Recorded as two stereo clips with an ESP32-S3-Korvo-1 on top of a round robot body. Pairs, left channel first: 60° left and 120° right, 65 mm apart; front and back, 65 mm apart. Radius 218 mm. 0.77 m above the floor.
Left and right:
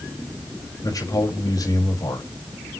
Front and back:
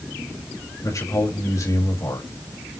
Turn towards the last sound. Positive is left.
turn(degrees=35)